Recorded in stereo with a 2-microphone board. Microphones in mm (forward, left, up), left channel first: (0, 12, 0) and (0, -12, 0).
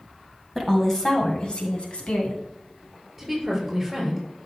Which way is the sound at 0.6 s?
10° left (ahead or behind).